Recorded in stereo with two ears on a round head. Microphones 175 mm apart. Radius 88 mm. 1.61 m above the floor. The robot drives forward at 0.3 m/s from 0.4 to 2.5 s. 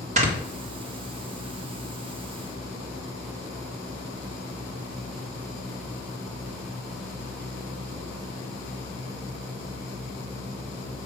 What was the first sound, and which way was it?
Snoring, 40° right (ahead or behind).